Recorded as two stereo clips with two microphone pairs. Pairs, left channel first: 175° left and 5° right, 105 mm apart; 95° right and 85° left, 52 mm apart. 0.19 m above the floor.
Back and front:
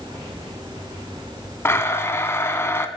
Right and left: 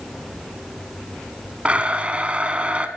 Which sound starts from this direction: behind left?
A blender, at 1.6 s.